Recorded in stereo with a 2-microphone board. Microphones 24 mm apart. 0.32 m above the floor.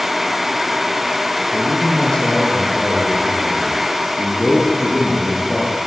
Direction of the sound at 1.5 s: 30° left (ahead or behind).